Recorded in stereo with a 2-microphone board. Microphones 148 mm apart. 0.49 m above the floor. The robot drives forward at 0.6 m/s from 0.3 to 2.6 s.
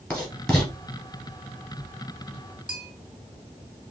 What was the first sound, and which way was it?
Writing, 5° left (ahead or behind).